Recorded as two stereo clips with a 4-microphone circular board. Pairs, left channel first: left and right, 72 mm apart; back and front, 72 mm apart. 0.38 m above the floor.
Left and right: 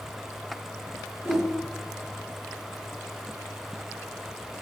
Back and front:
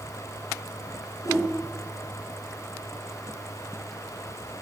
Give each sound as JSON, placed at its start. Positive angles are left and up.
{"t": 1.2, "sound": "a whoosh", "azimuth_deg": -145, "distance_m": 2.5}